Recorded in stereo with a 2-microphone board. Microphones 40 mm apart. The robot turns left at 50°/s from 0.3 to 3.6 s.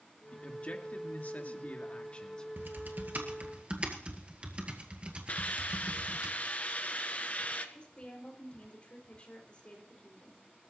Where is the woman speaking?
30° left (ahead or behind), 3.5 m.